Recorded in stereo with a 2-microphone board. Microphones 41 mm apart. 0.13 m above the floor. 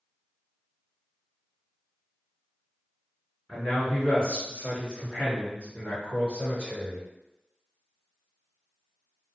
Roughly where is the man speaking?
Centre.